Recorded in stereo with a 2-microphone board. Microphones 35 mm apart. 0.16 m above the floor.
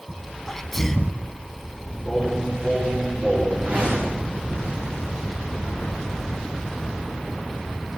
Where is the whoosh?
40° right (ahead or behind), 7 m.